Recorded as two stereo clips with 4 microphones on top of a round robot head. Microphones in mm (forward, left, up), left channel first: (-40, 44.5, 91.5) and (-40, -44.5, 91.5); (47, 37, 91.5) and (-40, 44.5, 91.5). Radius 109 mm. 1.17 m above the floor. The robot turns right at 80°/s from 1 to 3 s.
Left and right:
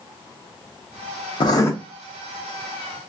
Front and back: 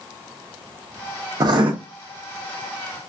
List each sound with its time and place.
1.4 s writing: 125° left, 0.7 m; by 1.7 s 150° left, 0.7 m